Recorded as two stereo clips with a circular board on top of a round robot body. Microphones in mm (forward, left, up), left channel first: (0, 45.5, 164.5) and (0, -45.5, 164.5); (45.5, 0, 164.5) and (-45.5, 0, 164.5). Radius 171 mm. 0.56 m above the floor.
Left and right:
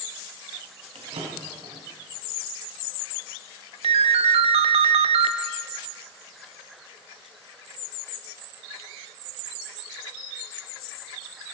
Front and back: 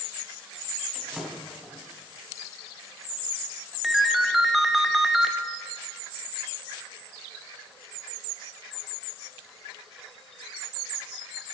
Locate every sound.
0.9 s a drawer: 95° right, 3.5 m
3.8 s a ringtone: 95° right, 0.5 m